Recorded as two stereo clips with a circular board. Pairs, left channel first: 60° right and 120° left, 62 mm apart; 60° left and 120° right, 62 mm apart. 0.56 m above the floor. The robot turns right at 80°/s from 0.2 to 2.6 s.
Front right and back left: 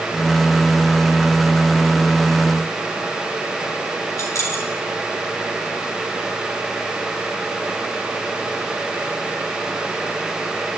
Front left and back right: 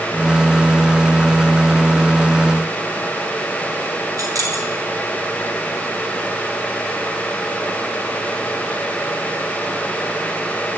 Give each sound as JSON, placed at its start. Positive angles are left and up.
{"t": 4.2, "sound": "keys jangling", "azimuth_deg": -95, "distance_m": 3.5}